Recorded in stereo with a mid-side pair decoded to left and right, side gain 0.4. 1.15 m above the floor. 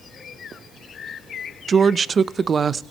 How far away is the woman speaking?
About 0.8 m.